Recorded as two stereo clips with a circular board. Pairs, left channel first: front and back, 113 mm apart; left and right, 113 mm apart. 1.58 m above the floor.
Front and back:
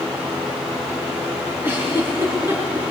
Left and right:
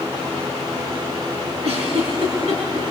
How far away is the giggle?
About 6 m.